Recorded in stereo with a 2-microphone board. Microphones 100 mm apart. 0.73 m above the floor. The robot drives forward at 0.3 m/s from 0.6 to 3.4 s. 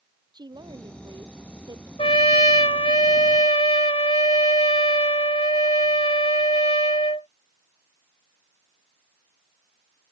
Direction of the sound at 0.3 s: 45° right (ahead or behind).